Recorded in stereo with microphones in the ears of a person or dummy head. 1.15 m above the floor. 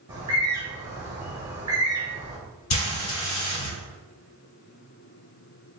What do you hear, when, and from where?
0.1 s a bird: 20° right (ahead or behind), 1.4 m
2.7 s frying: 40° left (ahead or behind), 1.8 m